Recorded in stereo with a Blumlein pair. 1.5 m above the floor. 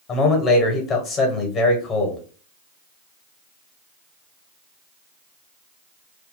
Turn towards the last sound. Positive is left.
turn(degrees=30)